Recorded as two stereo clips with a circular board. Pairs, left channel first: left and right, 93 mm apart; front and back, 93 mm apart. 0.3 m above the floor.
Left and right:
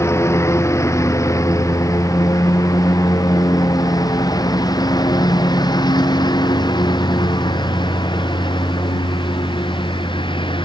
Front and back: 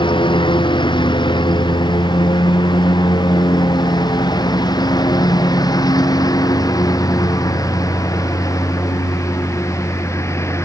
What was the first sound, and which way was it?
A lawn mower, 30° left.